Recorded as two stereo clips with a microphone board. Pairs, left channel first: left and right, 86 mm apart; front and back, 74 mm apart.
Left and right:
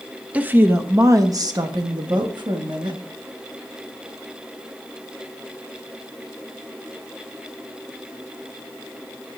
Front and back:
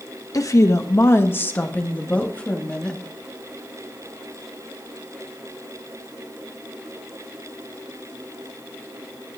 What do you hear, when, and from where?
0.3 s a woman speaking: 20° right, 0.8 m; by 3.0 s 75° right, 1.6 m